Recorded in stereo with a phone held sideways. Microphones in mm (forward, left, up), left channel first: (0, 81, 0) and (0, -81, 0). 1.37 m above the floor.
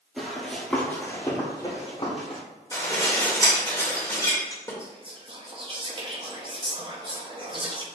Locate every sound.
0.2 s running footsteps: centre (ahead or behind), 1.5 m; by 2.4 s 40° left (ahead or behind), 1.8 m
2.7 s dishes clattering: 20° left (ahead or behind), 1.3 m
4.8 s whispering: 30° right (ahead or behind), 0.9 m